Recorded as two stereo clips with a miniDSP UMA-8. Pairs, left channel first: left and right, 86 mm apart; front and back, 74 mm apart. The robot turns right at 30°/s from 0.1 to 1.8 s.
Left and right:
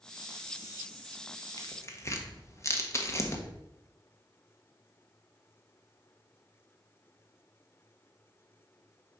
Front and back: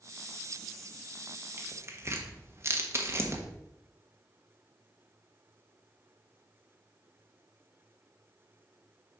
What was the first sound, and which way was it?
Tearing paper, 130° left.